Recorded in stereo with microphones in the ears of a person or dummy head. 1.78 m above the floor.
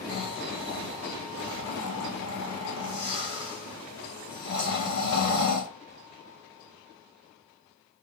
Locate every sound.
0.1 s snoring: 60° left (ahead or behind), 1.0 m